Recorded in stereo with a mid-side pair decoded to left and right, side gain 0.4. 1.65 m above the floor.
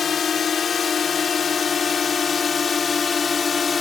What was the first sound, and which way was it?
A drone, 55° left.